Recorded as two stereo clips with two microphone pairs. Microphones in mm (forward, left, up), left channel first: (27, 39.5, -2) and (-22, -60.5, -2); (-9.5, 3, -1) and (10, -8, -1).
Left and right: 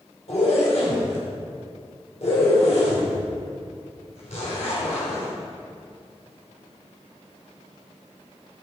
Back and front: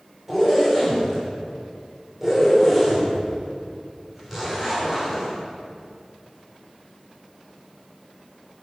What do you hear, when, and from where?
0.3 s a zipper: 45° left, 4 m